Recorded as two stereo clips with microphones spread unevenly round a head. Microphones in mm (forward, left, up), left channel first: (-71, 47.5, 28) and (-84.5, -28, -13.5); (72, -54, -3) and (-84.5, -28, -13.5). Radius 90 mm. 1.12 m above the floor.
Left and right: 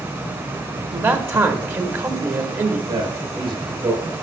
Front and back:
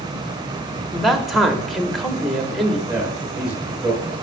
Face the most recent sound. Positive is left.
turn(degrees=-105)